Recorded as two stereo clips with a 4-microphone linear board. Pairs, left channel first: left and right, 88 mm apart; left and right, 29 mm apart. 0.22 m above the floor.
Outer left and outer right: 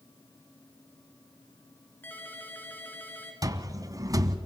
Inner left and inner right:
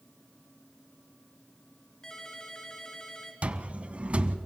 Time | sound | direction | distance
2.0 | a ringtone | 20° left (ahead or behind) | 2.5 m
3.4 | a cupboard door | 45° right (ahead or behind) | 0.8 m